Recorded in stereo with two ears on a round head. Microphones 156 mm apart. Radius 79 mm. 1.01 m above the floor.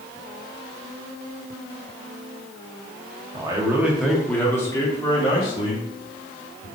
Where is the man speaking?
25° right (ahead or behind), 1.0 m; by 6.7 s 40° left (ahead or behind), 2.5 m.